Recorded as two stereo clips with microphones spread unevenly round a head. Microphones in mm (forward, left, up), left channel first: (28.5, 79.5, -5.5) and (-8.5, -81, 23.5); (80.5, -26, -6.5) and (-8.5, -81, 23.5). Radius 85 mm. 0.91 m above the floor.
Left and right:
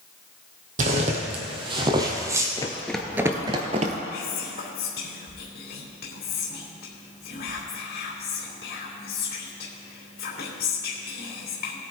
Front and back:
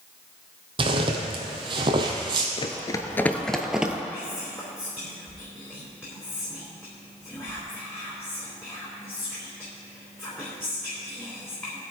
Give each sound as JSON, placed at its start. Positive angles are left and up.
{"t": 0.8, "sound": "footsteps", "azimuth_deg": -140, "distance_m": 1.8}
{"t": 2.6, "sound": "running footsteps", "azimuth_deg": 10, "distance_m": 0.9}
{"t": 4.1, "sound": "whispering", "azimuth_deg": 115, "distance_m": 3.0}